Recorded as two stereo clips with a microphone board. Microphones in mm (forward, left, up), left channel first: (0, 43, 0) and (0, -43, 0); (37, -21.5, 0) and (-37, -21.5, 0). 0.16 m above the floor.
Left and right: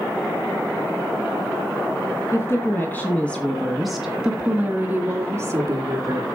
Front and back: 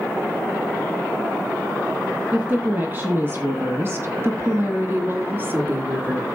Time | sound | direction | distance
2.3 | a woman speaking | 125° left | 2 m